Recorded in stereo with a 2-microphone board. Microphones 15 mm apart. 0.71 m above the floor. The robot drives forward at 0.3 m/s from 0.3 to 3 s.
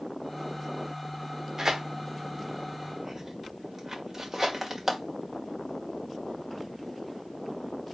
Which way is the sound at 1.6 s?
35° right (ahead or behind).